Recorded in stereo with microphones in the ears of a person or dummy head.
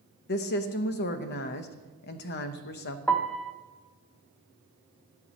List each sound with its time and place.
0.3 s a woman speaking: 50° left (ahead or behind), 0.9 m
3.1 s a piano: 5° left (ahead or behind), 0.7 m